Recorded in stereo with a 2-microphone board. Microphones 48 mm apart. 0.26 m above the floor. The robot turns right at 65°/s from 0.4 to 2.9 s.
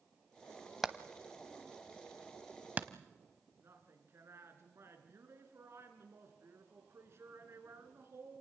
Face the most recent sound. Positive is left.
turn(degrees=-60)  # may be behind; listen again after turning